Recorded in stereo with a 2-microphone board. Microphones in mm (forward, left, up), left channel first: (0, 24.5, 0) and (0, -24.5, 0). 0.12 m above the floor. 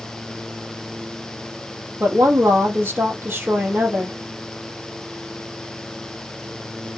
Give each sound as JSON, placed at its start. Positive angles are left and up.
{"t": 2.0, "sound": "a woman speaking", "side_deg": -40, "distance_m": 3.5}